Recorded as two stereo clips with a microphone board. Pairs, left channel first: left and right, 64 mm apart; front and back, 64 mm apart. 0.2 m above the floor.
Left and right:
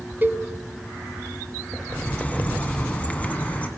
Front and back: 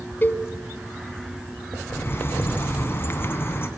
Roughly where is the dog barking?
No dog barking in this recording.